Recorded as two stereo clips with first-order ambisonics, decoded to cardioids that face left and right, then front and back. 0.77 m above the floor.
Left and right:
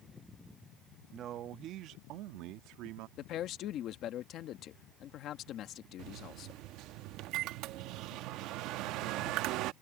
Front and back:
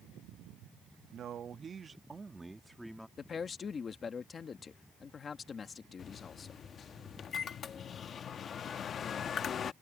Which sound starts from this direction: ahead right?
A microwave, at 6.0 s.